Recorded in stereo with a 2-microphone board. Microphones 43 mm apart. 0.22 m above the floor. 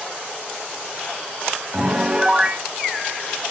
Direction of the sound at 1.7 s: 20° right (ahead or behind).